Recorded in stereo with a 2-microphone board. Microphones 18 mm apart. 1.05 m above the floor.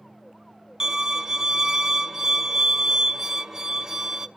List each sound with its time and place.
0.8 s a violin: 25° right (ahead or behind), 0.6 m